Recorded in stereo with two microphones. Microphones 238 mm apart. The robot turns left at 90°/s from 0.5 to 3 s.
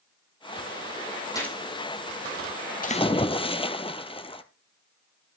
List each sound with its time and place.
1.4 s a gunshot: 15° left (ahead or behind), 4 m; by 1.6 s 5° right (ahead or behind), 4 m
2.8 s a splash: 35° left (ahead or behind), 0.7 m; by 4.4 s 20° left (ahead or behind), 0.7 m